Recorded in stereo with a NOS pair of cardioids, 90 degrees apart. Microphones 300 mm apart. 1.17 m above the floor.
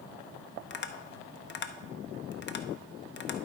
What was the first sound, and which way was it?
Tapping, 35° left.